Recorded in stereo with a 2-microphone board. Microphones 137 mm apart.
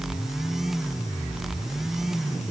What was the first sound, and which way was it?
Only background noise.